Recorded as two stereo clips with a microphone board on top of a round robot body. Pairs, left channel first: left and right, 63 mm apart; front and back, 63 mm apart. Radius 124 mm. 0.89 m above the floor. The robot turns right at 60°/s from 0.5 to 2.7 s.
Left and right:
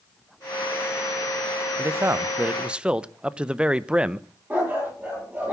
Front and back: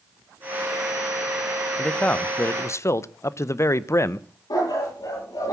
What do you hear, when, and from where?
1.8 s a man speaking: 75° right, 0.9 m; by 4.3 s 20° right, 0.9 m
4.5 s a dog barking: 20° right, 9 m